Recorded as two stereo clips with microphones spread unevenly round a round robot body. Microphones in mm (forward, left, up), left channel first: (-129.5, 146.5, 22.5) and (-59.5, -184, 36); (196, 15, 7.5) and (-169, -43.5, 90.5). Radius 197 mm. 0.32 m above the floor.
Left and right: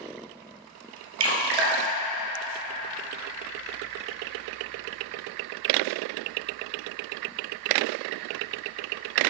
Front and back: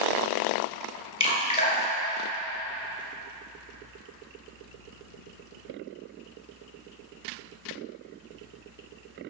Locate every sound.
1.2 s dripping: 65° right, 1.9 m